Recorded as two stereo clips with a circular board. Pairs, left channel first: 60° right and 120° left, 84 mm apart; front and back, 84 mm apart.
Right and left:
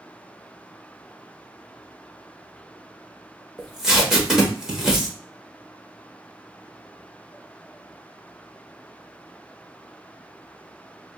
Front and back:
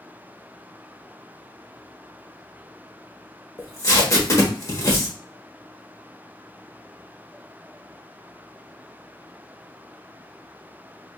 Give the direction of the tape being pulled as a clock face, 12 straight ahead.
11 o'clock.